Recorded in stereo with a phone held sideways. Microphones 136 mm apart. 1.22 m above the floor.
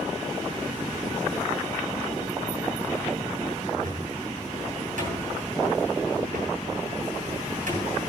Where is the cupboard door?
75° right (ahead or behind), 2.5 m.